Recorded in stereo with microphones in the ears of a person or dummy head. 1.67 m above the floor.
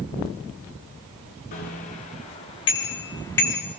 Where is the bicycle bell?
50° left (ahead or behind), 3.5 m; by 3.6 s 15° left (ahead or behind), 2.5 m.